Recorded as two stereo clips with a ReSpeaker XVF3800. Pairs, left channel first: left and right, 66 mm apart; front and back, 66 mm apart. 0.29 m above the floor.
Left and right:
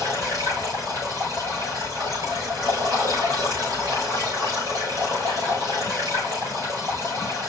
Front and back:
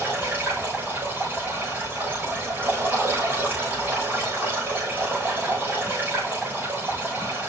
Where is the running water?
120° right, 5.5 m.